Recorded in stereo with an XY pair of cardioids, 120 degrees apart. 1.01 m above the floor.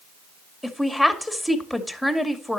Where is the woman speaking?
5° left, 2 m.